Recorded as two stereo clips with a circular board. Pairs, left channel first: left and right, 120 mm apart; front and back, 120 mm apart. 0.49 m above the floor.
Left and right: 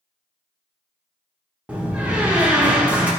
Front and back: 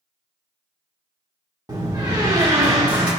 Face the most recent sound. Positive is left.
turn(degrees=-160)